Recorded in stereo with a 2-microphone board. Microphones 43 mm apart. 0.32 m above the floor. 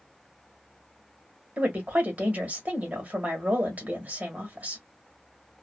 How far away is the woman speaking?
About 1.3 m.